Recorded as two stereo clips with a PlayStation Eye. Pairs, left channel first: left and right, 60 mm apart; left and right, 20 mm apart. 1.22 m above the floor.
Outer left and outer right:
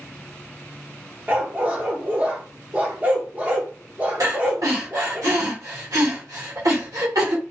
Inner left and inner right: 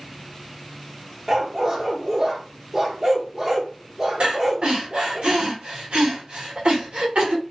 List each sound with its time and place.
1.3 s a dog barking: 25° right (ahead or behind), 0.7 m
4.2 s breathing: 75° right (ahead or behind), 1.4 m